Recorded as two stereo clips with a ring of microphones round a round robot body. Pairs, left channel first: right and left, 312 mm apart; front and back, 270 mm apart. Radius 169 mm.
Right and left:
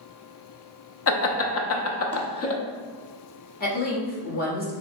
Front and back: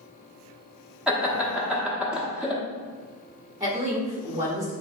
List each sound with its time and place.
1.1 s laughter: 95° right, 0.7 m
3.6 s a woman speaking: 110° right, 1.3 m